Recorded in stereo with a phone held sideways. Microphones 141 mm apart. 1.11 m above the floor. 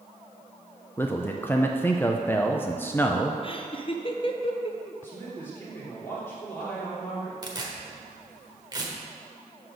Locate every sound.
1.0 s a man speaking: 15° left (ahead or behind), 0.5 m
3.4 s laughter: 35° left (ahead or behind), 0.8 m
5.0 s a man speaking: 15° left (ahead or behind), 3 m
7.4 s tearing paper: 30° right (ahead or behind), 1.3 m